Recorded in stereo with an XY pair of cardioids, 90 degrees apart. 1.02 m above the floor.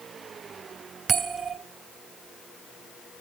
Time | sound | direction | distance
1.1 | a bell | 70° right | 3 m